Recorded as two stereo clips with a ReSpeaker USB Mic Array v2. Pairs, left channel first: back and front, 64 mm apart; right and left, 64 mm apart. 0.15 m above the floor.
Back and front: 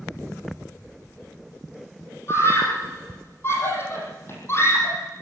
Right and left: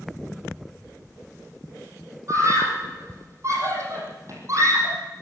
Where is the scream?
130° left, 6.5 m.